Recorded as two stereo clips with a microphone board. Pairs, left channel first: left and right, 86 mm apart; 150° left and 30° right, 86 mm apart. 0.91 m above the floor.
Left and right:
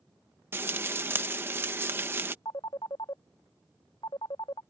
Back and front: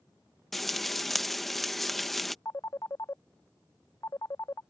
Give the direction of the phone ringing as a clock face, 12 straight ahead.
9 o'clock.